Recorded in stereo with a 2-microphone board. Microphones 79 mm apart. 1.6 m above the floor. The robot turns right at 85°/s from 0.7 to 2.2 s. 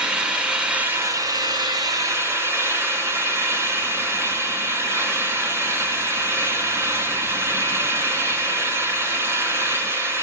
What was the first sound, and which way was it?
An engine running, 165° right.